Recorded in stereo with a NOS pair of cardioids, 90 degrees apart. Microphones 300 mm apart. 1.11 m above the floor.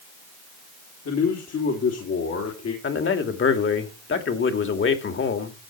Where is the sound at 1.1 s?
55° left, 3.5 m.